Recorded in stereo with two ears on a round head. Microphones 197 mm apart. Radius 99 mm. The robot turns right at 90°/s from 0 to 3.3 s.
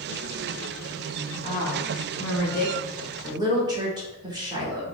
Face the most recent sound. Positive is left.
turn(degrees=-160)